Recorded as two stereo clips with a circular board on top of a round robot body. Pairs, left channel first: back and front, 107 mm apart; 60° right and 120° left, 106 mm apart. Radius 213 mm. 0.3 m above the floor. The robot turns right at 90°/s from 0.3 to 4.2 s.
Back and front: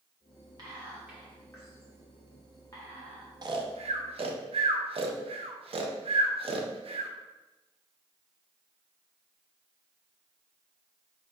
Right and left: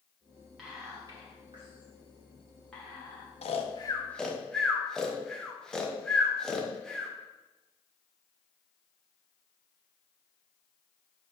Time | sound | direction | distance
0.6 | whispering | 30° left | 1.4 m
3.4 | snoring | 45° right | 0.6 m